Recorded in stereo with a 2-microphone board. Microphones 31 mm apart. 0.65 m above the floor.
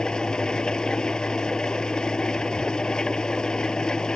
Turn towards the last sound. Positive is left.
turn(degrees=20)  # may be behind; listen again after turning